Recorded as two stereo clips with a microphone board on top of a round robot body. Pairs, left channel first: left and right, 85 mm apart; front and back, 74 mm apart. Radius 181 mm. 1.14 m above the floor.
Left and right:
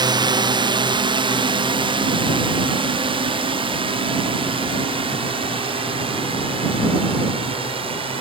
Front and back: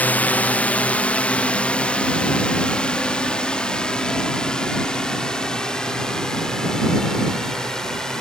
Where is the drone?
65° right; by 8.2 s 85° right.